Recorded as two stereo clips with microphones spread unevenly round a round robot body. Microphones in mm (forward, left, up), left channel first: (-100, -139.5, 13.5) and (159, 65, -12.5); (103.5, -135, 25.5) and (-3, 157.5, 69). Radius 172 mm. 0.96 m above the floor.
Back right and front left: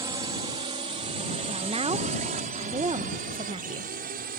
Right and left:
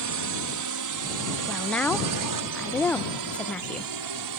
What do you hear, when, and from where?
0.0 s a drone: 115° left; by 4.4 s 100° left
1.5 s a woman speaking: 5° right